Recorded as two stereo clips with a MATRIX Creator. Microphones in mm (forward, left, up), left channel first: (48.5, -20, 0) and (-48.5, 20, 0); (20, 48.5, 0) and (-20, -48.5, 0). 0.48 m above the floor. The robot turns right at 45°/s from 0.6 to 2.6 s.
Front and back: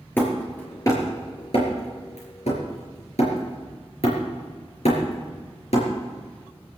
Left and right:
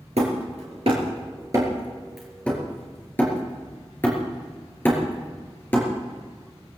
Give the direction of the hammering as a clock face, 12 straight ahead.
3 o'clock.